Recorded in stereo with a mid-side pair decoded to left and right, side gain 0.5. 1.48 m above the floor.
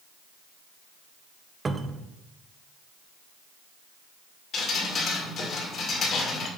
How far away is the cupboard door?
About 0.7 m.